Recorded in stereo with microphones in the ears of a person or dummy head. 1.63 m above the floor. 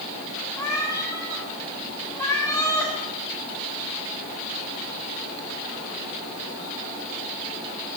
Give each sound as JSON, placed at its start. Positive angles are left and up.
{"t": 0.6, "sound": "a cat meowing", "side_deg": 20, "distance_m": 2.5}